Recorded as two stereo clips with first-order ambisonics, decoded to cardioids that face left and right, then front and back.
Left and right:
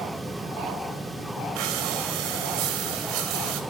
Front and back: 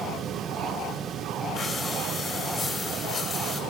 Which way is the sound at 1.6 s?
80° right.